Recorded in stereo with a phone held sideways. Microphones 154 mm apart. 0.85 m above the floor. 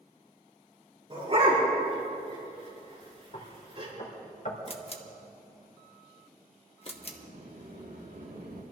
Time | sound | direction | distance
1.1 | a dog barking | 40° right (ahead or behind) | 5 m
3.3 | knocking | 50° left (ahead or behind) | 2 m
4.7 | a camera shutter | 40° left (ahead or behind) | 1.1 m
6.9 | a sliding door | 75° right (ahead or behind) | 4.5 m